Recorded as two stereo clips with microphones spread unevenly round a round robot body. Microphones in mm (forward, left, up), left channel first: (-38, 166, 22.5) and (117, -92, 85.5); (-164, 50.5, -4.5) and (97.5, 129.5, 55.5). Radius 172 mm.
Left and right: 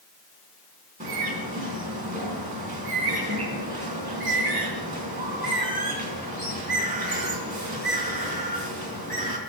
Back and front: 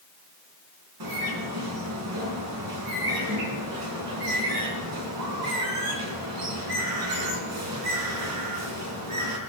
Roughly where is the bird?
Ahead.